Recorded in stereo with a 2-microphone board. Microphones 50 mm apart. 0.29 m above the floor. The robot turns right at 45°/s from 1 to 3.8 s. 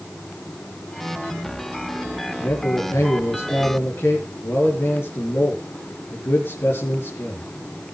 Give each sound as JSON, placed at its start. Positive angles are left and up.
{"t": 2.4, "sound": "a man speaking", "azimuth_deg": 60, "distance_m": 4.5}